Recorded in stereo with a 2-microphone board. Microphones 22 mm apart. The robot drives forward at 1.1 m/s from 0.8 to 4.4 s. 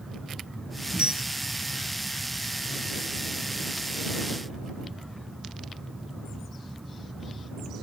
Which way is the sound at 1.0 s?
60° right (ahead or behind).